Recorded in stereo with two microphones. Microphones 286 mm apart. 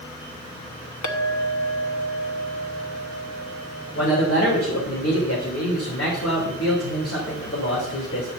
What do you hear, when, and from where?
1.0 s a clink: 85° left, 0.9 m
4.0 s a man speaking: 50° left (ahead or behind), 2.5 m